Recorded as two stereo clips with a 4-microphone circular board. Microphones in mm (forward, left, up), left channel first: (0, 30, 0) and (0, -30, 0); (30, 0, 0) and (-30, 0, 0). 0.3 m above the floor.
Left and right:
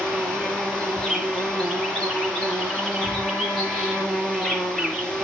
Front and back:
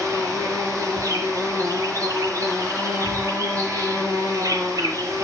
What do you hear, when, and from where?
0.0 s an insect: 165° left, 4.5 m